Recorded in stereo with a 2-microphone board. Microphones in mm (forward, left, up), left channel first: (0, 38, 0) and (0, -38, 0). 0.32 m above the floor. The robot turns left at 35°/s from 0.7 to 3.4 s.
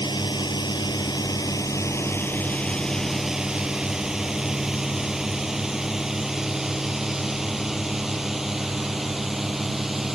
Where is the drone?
80° left; by 10.2 s 5° right (ahead or behind).